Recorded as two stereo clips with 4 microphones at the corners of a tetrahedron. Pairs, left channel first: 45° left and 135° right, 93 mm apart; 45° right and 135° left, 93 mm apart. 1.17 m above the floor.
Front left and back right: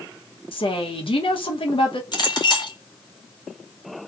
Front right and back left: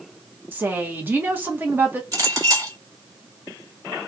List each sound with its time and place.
0.5 s a woman speaking: 65° left, 1.0 m
2.1 s a clink: 85° left, 1.6 m